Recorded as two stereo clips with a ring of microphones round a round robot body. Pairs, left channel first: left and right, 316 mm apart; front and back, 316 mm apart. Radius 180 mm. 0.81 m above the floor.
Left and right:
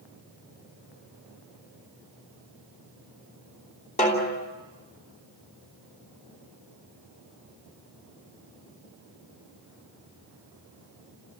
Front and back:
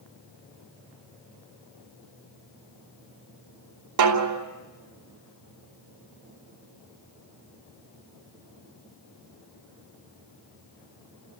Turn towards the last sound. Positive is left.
turn(degrees=160)